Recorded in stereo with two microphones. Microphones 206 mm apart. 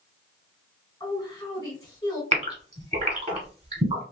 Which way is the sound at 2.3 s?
30° right (ahead or behind).